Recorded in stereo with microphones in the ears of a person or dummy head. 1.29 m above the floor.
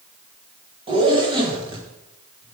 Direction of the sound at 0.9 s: 30° right (ahead or behind).